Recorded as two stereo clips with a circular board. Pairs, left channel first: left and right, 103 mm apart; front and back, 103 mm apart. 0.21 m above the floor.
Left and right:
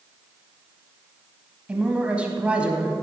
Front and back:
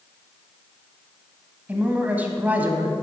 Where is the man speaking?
145° right, 1.2 m.